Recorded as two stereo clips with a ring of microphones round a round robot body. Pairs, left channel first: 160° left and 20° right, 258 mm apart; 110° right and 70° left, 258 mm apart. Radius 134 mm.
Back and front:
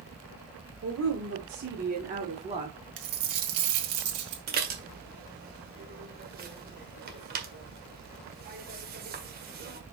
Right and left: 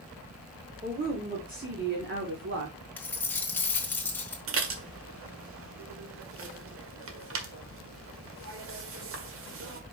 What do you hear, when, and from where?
0.8 s a woman speaking: 5° left, 2.5 m; by 2.8 s 45° left, 2.0 m
3.0 s a dropped coin: 30° right, 1.6 m
4.5 s dishes clattering: 30° left, 1.6 m